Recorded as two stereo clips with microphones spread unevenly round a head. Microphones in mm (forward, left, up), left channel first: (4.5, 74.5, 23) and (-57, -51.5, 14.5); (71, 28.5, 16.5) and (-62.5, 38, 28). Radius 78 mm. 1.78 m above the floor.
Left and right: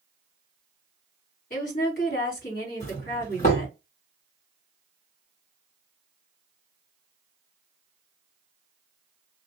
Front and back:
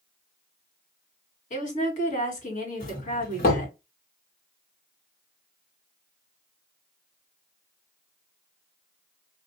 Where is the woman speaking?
25° left, 2 m.